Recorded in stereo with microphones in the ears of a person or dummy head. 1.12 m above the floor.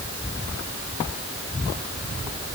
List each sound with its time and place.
Only background noise.